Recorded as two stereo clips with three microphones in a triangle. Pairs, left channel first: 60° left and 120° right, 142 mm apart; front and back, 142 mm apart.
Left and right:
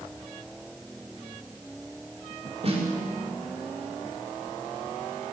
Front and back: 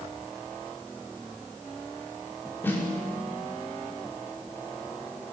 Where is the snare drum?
75° right, 6 m.